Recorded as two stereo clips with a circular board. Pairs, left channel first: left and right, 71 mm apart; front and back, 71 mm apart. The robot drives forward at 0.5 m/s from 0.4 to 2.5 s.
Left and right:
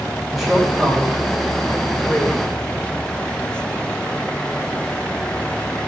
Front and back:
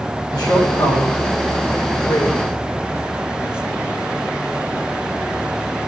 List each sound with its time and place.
0.3 s a woman speaking: 5° right, 3.5 m